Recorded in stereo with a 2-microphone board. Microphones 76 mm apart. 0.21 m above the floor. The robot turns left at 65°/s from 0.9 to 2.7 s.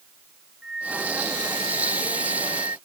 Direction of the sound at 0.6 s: 10° right.